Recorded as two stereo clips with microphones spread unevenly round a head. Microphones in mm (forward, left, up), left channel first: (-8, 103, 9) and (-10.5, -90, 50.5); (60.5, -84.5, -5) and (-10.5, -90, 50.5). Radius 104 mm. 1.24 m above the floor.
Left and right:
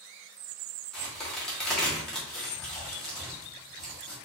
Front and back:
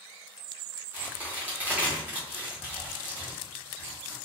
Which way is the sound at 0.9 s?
175° right.